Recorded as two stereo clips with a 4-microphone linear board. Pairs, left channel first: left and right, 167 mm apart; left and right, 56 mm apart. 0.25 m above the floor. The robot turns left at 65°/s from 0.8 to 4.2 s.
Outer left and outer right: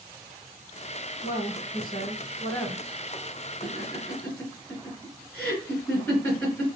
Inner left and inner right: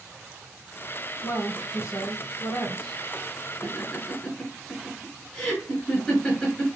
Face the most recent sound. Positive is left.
turn(degrees=20)  # may be behind; listen again after turning